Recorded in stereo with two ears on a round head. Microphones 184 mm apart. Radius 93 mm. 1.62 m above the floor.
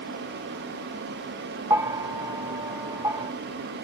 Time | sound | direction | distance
1.7 | a bell | 15° right (ahead or behind) | 0.6 m